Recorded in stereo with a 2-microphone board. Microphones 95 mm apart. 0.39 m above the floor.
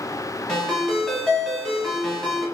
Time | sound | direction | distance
0.5 | a ringtone | 5° left (ahead or behind) | 0.9 m